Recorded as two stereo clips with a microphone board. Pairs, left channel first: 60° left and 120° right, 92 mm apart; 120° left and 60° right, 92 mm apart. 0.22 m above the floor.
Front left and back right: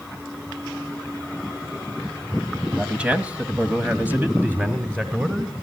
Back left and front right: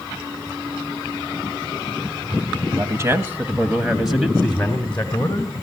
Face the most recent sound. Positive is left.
turn(degrees=175)